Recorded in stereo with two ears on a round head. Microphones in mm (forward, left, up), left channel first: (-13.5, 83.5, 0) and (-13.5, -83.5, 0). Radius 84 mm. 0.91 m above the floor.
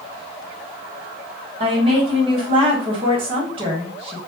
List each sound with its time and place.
1.6 s a woman speaking: 30° right (ahead or behind), 1.1 m